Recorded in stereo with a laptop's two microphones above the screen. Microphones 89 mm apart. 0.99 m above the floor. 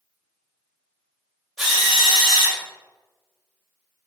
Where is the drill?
5° right (ahead or behind), 1.3 m.